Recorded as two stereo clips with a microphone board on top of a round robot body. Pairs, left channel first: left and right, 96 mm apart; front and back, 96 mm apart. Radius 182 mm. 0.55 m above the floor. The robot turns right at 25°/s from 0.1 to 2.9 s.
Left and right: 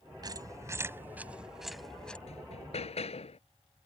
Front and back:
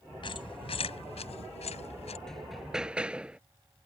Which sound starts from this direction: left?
Hammering, at 2.3 s.